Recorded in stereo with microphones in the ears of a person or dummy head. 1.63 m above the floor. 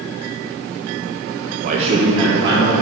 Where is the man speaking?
35° right (ahead or behind), 0.5 m; by 2.8 s 20° right (ahead or behind), 2.0 m.